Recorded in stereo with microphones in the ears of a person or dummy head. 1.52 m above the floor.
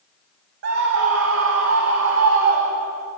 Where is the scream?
70° right (ahead or behind), 1.8 m; by 3.1 s 80° right, 3 m.